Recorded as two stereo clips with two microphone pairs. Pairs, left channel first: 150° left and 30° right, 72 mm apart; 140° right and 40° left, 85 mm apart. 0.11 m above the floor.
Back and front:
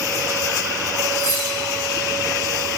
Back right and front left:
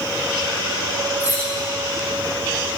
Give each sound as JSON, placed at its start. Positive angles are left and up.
{"t": 1.2, "sound": "cutlery clinking", "azimuth_deg": 175, "distance_m": 5.0}